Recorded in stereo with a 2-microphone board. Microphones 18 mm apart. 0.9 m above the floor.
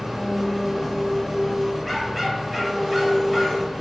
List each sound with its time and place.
0.0 s an engine running: centre (ahead or behind), 0.7 m
1.8 s a dog barking: 5° right (ahead or behind), 0.9 m